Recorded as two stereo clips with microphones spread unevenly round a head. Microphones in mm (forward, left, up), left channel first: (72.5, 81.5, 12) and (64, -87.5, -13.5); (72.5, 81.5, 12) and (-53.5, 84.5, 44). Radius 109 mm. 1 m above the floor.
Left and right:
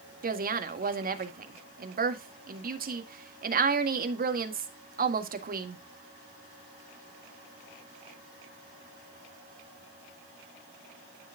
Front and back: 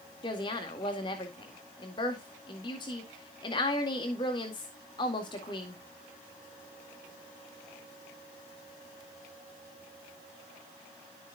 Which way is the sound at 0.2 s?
60° right.